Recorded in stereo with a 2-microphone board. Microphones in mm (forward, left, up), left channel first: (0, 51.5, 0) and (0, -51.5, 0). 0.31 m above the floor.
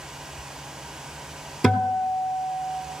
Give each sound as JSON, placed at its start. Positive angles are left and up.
{"t": 1.6, "sound": "a guitar", "side_deg": 5, "distance_m": 1.2}